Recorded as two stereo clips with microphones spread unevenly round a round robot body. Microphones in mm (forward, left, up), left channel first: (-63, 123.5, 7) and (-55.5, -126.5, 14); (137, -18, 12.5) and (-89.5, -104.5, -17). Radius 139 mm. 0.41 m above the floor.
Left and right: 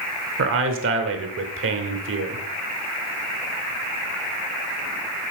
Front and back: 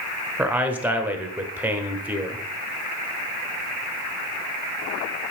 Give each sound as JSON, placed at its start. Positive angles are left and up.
{"t": 0.4, "sound": "a man speaking", "azimuth_deg": -85, "distance_m": 1.1}